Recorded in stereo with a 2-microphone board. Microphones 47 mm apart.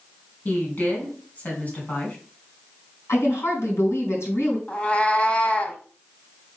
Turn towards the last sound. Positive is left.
turn(degrees=25)  # may be behind; listen again after turning